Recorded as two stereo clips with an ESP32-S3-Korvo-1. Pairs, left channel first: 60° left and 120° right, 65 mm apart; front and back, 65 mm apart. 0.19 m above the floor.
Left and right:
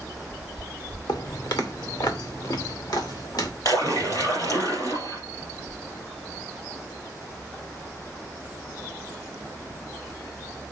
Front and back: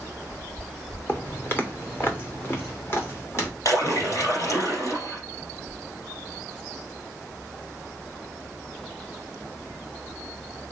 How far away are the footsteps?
About 1.8 m.